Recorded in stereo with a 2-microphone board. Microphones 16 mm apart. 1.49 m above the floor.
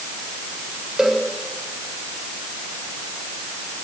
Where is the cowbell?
50° right (ahead or behind), 7.5 m.